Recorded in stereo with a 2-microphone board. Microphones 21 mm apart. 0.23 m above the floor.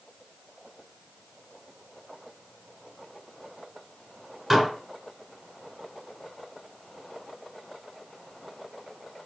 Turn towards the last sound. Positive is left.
turn(degrees=-15)  # may be behind; listen again after turning